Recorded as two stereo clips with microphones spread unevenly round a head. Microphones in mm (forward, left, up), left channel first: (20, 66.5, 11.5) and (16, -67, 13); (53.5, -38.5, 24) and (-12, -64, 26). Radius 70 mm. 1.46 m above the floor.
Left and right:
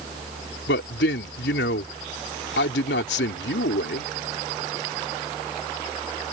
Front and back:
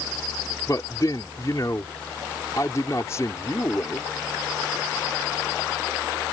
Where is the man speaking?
90° left.